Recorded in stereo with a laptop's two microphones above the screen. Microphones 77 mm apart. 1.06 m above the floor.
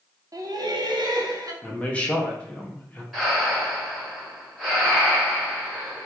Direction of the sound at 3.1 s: 5° right (ahead or behind).